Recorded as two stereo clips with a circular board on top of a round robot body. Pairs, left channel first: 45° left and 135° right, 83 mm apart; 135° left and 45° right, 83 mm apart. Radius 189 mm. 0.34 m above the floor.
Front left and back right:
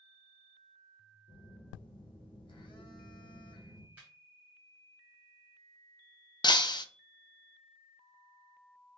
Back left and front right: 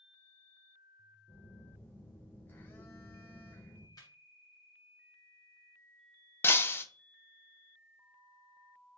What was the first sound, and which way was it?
A phone buzzing, 65° left.